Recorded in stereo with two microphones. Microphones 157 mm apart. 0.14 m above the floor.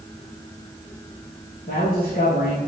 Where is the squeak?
No squeak in this recording.